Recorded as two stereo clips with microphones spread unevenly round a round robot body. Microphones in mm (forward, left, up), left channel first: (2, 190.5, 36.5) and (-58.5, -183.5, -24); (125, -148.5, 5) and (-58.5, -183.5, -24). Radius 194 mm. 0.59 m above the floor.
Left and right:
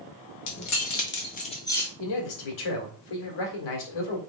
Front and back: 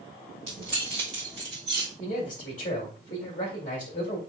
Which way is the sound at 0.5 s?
125° left.